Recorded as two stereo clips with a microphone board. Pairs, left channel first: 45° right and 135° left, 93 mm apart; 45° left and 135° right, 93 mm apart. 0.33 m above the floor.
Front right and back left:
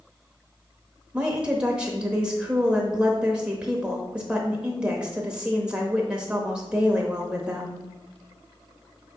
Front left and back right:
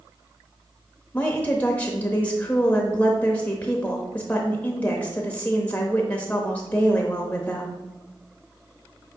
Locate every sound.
1.1 s a woman speaking: 80° left, 0.8 m